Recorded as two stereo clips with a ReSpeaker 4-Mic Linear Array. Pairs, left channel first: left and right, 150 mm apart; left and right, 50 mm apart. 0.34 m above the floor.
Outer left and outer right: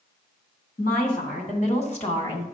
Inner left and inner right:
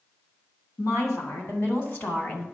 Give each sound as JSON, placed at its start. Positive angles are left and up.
{"t": 0.8, "sound": "a woman speaking", "side_deg": 70, "distance_m": 3.0}